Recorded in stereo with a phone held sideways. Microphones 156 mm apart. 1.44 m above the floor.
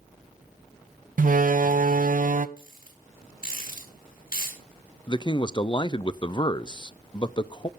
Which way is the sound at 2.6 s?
65° left (ahead or behind).